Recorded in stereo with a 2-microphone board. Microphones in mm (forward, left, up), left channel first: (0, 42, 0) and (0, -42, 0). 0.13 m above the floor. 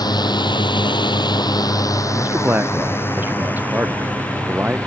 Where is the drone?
55° left (ahead or behind); by 4.9 s 15° left (ahead or behind).